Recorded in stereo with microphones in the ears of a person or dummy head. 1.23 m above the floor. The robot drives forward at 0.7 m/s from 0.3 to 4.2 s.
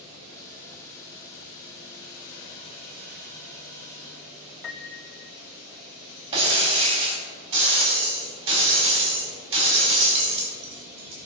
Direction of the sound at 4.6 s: Centre (ahead or behind).